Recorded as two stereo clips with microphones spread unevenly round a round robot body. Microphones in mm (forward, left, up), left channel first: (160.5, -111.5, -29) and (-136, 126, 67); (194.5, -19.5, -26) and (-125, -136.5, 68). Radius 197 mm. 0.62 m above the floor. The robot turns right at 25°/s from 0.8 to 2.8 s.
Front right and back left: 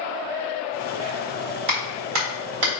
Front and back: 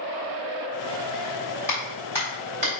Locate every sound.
1.7 s a clap: 100° left, 3.5 m; by 2.8 s 130° left, 3.5 m